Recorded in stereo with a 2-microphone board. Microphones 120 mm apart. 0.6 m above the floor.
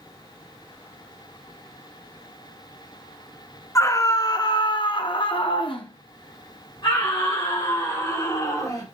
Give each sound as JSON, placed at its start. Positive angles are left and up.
{"t": 3.8, "sound": "a scream", "side_deg": 25, "distance_m": 1.3}